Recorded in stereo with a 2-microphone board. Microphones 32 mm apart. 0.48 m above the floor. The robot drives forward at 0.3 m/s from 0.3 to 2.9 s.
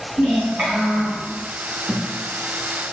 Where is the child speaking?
55° right (ahead or behind), 1.5 m; by 1.3 s 60° right (ahead or behind), 1.5 m.